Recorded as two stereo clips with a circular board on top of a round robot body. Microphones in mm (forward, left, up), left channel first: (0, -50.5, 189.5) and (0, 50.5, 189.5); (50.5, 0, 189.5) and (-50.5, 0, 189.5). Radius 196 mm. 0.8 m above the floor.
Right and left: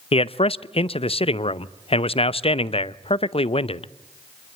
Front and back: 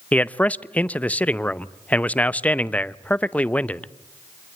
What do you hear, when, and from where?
0.1 s a man speaking: 75° right, 0.9 m